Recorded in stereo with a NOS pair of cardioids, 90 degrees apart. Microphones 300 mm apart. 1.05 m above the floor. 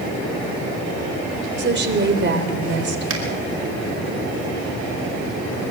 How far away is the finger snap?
About 5.5 m.